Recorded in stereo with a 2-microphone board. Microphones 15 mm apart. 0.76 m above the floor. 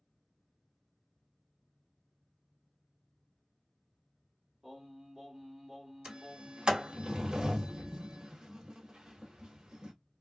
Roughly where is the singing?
Right.